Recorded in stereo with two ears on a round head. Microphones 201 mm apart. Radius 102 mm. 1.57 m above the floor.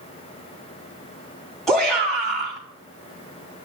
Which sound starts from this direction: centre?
A shout, at 1.7 s.